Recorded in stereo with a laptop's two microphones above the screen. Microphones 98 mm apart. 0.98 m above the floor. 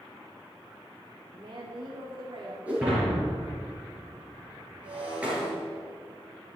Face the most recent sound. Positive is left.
turn(degrees=-15)  # may be behind; listen again after turning